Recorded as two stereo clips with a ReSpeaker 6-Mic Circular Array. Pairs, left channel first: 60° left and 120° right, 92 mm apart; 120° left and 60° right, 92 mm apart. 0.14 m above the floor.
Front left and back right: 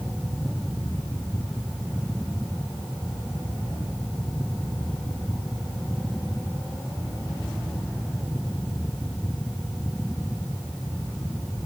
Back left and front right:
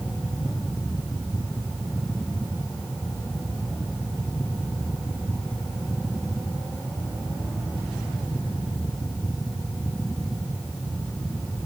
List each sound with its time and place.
Only background noise.